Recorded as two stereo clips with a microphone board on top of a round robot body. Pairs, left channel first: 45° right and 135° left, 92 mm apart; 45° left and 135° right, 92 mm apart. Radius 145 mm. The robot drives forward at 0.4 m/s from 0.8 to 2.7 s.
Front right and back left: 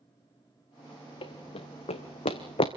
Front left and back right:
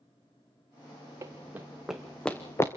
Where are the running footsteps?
75° right, 1.9 m; by 2.7 s 15° right, 1.6 m.